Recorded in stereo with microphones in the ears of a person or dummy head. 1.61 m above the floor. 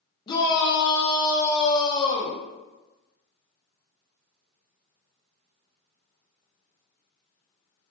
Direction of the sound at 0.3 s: 20° left (ahead or behind).